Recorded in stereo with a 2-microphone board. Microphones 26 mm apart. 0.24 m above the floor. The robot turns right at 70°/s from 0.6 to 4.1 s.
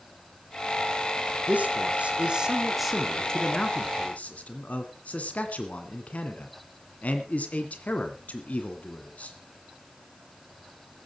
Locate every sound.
1.5 s a man speaking: 60° right (ahead or behind), 2 m; by 9.3 s 60° left (ahead or behind), 2 m